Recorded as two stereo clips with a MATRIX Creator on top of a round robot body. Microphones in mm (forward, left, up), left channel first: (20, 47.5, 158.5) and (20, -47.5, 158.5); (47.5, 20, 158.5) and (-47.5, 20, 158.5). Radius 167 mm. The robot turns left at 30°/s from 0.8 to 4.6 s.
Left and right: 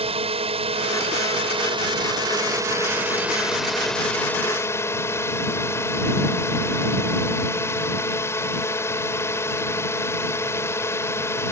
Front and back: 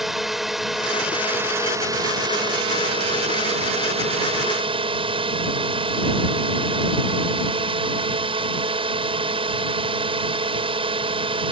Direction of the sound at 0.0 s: 90° right.